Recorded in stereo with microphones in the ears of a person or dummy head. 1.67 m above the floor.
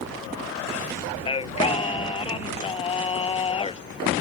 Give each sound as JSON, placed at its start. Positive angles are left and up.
{"t": 1.3, "sound": "singing", "side_deg": 25}